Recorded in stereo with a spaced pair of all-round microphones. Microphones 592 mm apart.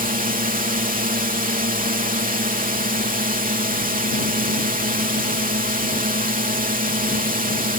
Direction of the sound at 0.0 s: 15° right (ahead or behind).